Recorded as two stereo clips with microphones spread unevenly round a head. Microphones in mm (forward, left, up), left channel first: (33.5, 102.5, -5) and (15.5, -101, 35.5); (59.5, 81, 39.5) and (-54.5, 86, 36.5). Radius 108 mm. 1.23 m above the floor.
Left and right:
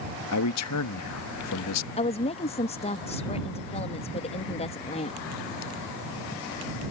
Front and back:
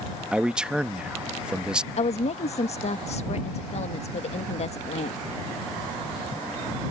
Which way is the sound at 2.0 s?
25° left.